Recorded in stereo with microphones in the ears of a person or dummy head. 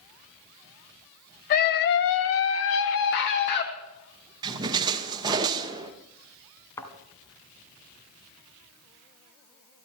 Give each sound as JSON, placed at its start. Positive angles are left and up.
{"t": 1.5, "sound": "a scream", "side_deg": 50, "distance_m": 1.2}
{"t": 4.4, "sound": "a splash", "side_deg": -25, "distance_m": 1.2}
{"t": 6.8, "sound": "a thud", "side_deg": 20, "distance_m": 2.5}